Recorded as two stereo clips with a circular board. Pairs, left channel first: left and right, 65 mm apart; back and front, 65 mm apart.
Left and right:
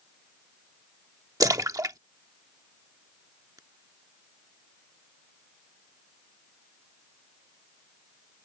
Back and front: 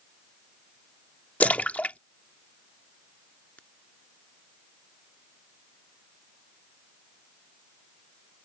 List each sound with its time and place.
1.4 s a splash: 115° right